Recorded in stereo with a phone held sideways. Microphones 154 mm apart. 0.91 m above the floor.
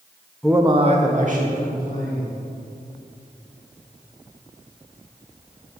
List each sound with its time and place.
0.4 s a man speaking: 5° left (ahead or behind), 0.6 m; by 2.4 s 65° right (ahead or behind), 3 m